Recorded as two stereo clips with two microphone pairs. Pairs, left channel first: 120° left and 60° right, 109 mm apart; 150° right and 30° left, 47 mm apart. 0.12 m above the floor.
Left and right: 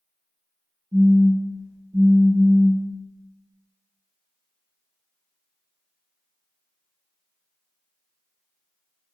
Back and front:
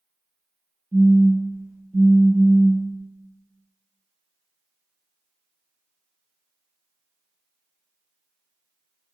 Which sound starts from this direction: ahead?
A phone buzzing, at 0.9 s.